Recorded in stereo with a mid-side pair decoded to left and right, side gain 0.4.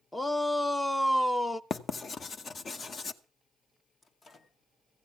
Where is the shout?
15° left, 0.5 m.